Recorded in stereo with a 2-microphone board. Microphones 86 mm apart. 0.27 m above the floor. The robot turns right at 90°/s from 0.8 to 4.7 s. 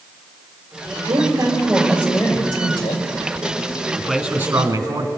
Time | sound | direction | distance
1.1 | a woman speaking | 65° right | 6.5 m
4.0 | a man speaking | 175° left | 3 m